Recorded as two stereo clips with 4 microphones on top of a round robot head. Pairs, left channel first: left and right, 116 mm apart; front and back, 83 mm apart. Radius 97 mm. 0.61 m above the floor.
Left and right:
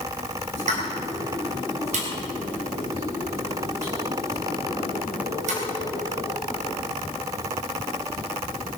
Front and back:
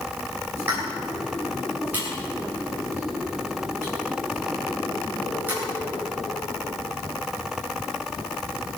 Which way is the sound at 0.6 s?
105° right.